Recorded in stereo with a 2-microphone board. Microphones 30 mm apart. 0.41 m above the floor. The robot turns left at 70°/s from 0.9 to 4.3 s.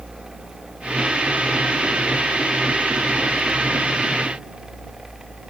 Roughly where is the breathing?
I don't hear breathing.